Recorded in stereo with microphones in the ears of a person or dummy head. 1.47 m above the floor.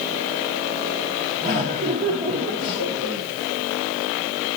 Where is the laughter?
40° right (ahead or behind), 1.6 m.